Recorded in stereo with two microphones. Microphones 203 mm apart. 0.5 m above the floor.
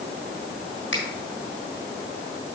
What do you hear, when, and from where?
0.9 s a finger snap: 65° left (ahead or behind), 3 m